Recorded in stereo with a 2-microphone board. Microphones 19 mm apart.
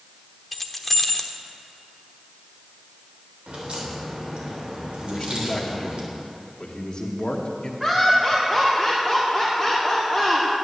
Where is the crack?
70° right (ahead or behind), 3.5 m.